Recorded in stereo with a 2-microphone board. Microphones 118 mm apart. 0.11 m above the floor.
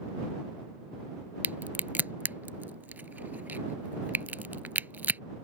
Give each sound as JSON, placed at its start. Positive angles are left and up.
{"t": 1.4, "sound": "a crack", "side_deg": -15}